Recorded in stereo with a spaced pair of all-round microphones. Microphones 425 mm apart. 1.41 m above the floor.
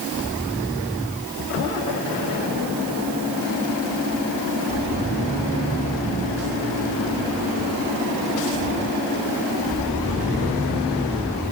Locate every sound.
Only background noise.